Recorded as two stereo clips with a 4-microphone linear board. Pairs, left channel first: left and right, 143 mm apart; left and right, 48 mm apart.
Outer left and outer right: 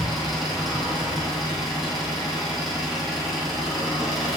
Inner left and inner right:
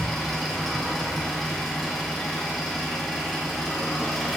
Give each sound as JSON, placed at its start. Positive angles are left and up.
{"t": 0.0, "sound": "an engine running", "side_deg": 0, "distance_m": 2.0}